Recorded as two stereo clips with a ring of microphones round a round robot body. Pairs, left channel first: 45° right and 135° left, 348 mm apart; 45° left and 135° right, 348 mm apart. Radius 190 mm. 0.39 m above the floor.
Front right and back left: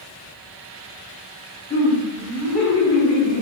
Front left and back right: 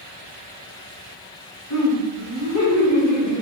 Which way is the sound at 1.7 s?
15° left.